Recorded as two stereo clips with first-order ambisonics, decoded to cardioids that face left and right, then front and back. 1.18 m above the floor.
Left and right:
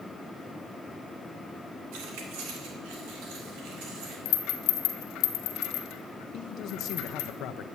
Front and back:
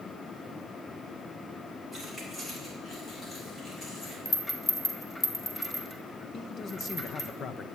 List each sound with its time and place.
1.9 s keys jangling: 85° right, 3 m; by 4.2 s 70° right, 5.5 m
4.2 s a rattle: 80° left, 1.5 m
6.3 s a man speaking: 55° left, 0.7 m